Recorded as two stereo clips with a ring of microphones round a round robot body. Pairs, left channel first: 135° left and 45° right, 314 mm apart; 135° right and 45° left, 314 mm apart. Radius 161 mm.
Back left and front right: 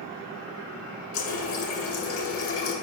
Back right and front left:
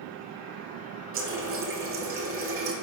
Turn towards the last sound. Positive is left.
turn(degrees=90)